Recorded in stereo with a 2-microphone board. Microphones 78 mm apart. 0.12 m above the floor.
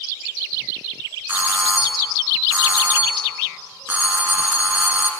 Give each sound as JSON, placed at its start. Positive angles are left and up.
{"t": 1.3, "sound": "a doorbell", "side_deg": -20, "distance_m": 1.6}